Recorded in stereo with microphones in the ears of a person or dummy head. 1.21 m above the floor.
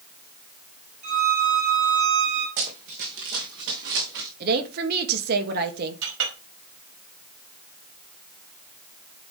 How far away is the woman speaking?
About 1.8 m.